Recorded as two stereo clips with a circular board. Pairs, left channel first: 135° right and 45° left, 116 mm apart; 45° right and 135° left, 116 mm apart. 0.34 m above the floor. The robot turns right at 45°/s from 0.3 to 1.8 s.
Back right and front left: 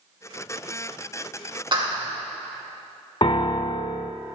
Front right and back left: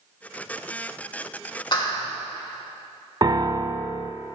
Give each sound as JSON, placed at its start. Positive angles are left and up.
{"t": 1.7, "sound": "a clap", "azimuth_deg": 0, "distance_m": 2.5}
{"t": 3.2, "sound": "a piano", "azimuth_deg": -175, "distance_m": 0.7}